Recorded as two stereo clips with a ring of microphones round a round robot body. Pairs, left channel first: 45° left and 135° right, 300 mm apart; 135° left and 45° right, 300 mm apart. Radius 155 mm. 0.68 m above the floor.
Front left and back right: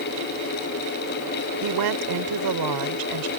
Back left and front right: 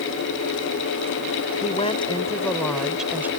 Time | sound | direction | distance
1.6 | a woman speaking | 155° right | ?